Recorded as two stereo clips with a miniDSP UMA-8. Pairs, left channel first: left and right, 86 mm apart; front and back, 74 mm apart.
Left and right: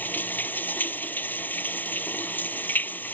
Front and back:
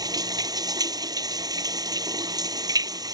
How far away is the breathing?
I don't hear breathing.